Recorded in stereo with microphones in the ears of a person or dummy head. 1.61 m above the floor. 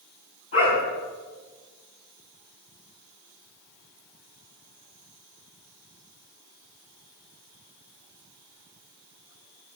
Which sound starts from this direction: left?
A dog barking, at 0.5 s.